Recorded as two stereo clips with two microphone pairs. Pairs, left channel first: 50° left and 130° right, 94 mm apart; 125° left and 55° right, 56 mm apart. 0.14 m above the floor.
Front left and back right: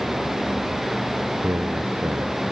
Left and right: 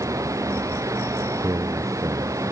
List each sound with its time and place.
0.0 s running water: 40° right
1.4 s a man speaking: 65° right